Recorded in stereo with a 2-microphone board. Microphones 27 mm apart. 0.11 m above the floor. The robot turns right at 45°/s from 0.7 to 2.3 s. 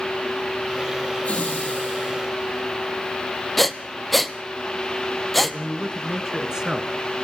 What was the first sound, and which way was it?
Laughter, 60° left.